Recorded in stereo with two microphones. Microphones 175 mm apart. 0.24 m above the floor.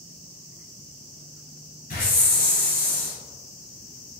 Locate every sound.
1.9 s a hiss: 55° left (ahead or behind), 1.2 m